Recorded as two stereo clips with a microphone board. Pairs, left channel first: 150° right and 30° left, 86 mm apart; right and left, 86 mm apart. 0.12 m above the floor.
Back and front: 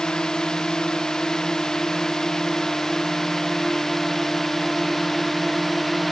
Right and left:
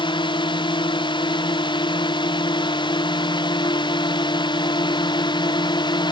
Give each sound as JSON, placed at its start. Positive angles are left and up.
{"t": 0.0, "sound": "a drone", "azimuth_deg": -65}